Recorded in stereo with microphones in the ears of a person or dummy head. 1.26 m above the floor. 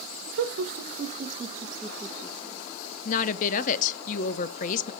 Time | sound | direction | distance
0.3 | laughter | 70° right (ahead or behind) | 0.9 m
3.0 | a woman speaking | 45° left (ahead or behind) | 0.6 m